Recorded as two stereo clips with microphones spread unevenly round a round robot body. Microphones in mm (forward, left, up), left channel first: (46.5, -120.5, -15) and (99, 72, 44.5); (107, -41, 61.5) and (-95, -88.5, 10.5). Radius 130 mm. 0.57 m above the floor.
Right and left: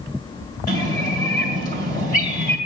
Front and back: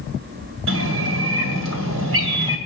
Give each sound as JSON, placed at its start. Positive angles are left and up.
{"t": 0.7, "sound": "a bird", "azimuth_deg": -175, "distance_m": 2.5}